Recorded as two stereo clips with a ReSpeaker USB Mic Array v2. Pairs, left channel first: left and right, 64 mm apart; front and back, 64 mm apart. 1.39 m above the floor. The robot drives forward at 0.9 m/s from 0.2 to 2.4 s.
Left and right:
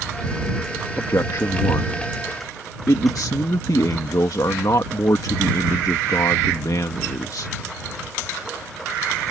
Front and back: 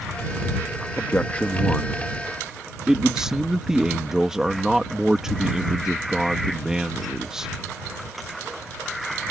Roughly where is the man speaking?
Ahead left.